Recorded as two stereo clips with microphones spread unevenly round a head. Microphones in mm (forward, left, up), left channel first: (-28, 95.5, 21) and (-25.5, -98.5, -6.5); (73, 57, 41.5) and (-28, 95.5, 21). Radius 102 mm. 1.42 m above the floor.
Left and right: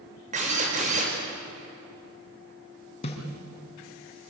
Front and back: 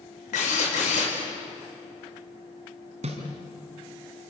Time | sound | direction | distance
0.3 | a drill | 30° right | 5 m
3.0 | a snare drum | 145° left | 4.5 m